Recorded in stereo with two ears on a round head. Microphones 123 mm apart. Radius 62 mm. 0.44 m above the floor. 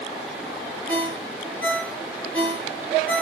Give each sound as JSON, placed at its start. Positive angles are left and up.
{"t": 0.9, "sound": "a ringtone", "side_deg": 10, "distance_m": 3.5}